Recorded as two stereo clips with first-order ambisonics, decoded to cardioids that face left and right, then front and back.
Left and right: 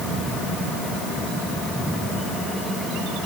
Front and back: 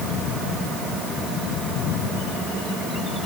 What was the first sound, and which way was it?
Only background noise.